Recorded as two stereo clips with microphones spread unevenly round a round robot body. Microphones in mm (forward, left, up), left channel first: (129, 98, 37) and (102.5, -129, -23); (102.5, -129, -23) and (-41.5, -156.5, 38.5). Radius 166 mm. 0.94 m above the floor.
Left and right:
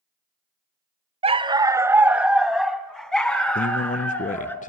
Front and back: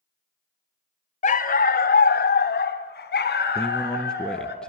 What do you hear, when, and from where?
1.2 s a dog barking: 30° right, 0.8 m; by 4.5 s 5° left, 3 m
3.5 s a man speaking: 30° left, 0.6 m